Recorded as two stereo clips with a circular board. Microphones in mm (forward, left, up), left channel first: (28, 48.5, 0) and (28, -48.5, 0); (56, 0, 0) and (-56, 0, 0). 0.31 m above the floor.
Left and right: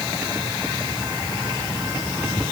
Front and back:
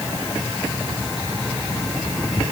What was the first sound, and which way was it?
Only background noise.